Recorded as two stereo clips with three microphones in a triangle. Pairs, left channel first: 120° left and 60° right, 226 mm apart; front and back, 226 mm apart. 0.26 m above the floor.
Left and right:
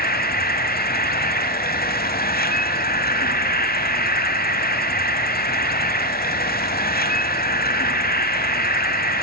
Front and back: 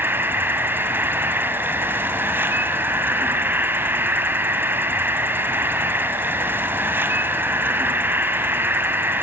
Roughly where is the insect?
Left.